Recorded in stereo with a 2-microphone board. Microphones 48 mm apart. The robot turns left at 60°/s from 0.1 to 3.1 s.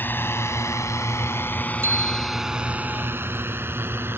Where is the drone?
45° left (ahead or behind); by 4.2 s 50° right (ahead or behind).